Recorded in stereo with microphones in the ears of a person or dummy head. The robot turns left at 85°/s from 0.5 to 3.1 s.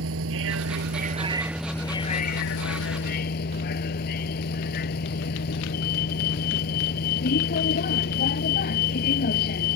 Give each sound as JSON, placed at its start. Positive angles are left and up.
{"t": 0.0, "sound": "a vehicle", "azimuth_deg": -85}